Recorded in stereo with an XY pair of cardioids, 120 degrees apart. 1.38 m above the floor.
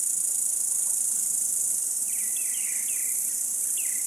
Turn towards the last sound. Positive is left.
turn(degrees=-20)